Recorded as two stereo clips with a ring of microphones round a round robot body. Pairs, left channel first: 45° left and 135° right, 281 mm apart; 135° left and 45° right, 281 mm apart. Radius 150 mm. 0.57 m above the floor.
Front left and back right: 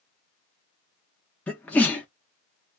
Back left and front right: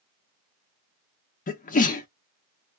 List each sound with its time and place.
1.5 s a sneeze: 125° left, 0.6 m